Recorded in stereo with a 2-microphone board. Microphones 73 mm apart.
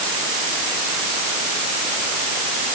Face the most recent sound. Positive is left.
No sound to turn to.